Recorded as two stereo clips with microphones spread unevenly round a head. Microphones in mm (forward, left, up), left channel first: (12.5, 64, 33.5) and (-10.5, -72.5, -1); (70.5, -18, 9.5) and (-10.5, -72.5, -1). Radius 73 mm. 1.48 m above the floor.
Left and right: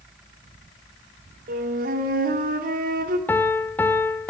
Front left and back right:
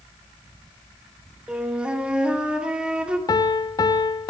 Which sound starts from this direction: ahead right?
A flute, at 1.5 s.